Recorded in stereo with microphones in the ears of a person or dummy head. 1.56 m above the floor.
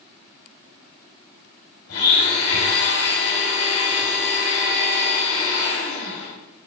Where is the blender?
70° left (ahead or behind), 3.5 m.